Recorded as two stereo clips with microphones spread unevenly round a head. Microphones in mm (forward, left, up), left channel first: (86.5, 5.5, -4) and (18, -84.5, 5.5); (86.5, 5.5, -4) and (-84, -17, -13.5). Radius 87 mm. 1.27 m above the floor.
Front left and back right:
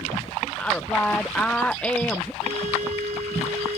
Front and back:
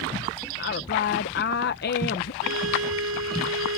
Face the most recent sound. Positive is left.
turn(degrees=-175)